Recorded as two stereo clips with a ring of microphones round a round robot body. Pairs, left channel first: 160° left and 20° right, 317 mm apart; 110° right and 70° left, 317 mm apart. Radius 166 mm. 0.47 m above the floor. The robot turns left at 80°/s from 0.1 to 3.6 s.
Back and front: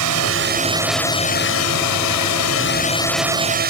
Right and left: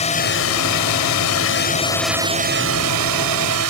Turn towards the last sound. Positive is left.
turn(degrees=35)